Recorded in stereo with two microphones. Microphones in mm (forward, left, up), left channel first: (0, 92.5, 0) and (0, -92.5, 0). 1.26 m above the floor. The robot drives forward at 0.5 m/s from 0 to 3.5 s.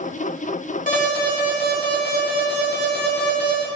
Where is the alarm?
50° left (ahead or behind), 3 m; by 3.6 s 65° left (ahead or behind), 2.5 m.